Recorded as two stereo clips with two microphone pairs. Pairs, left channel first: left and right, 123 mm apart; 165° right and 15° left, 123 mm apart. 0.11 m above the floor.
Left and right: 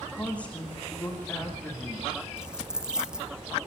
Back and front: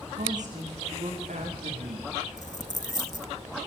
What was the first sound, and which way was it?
A woman speaking, 10° left.